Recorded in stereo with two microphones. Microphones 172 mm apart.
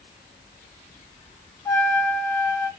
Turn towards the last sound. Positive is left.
turn(degrees=15)  # may be behind; listen again after turning